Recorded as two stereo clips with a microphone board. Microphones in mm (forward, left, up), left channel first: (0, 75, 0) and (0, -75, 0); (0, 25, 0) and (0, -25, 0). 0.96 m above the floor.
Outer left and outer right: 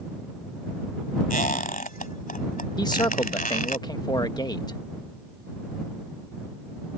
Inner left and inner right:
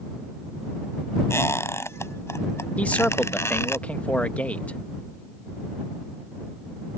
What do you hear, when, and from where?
1.3 s a squeak: 65° left (ahead or behind)
2.8 s a man speaking: 30° left (ahead or behind)